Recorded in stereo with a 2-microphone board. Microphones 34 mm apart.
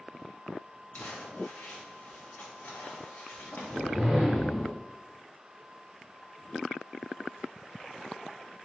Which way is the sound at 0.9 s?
65° left (ahead or behind).